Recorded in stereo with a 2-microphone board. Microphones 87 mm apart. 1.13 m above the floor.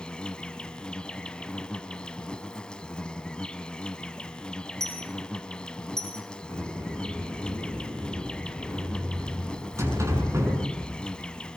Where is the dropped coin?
5° left (ahead or behind), 3 m.